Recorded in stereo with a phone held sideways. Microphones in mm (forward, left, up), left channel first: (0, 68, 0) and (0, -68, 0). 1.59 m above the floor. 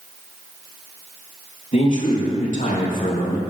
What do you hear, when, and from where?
1.7 s a man speaking: 60° left (ahead or behind), 3 m; by 3.4 s 75° left (ahead or behind), 2.5 m